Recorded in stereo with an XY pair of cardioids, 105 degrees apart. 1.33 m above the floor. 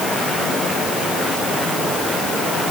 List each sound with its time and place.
Only background noise.